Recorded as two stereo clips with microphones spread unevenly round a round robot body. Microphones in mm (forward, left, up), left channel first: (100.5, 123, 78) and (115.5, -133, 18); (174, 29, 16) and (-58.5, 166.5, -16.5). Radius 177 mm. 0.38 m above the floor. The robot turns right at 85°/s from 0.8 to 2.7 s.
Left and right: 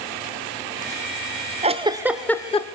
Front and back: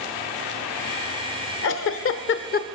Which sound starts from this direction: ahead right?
A giggle, at 1.6 s.